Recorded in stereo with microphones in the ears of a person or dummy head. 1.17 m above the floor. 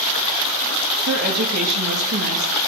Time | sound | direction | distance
1.1 | a woman speaking | 50° right (ahead or behind) | 1.2 m